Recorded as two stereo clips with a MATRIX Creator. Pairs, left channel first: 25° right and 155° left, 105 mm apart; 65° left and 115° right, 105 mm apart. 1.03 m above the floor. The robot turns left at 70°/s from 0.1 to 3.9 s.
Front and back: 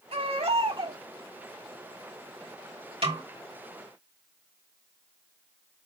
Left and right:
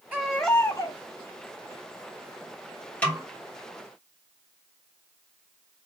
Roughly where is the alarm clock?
I don't hear an alarm clock.